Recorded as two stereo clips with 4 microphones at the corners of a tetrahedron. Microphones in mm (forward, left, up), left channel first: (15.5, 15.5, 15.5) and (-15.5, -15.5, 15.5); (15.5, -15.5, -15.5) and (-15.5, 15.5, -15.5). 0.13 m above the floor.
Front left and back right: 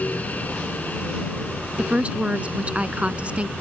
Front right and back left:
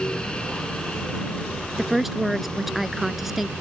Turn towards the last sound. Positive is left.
turn(degrees=-145)